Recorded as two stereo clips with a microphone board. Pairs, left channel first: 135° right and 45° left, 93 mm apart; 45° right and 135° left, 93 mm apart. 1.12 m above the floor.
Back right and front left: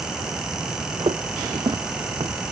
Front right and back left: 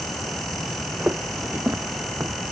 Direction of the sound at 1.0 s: 60° left.